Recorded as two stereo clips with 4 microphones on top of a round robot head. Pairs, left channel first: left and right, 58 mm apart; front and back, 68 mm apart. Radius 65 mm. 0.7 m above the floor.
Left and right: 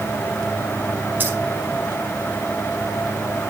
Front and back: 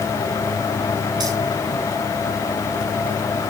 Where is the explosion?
No explosion in this recording.